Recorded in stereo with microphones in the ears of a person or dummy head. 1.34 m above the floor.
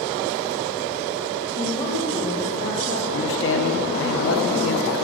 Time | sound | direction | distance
1.5 | a woman speaking | 25° left (ahead or behind) | 3 m
3.1 | a man speaking | 70° left (ahead or behind) | 1.1 m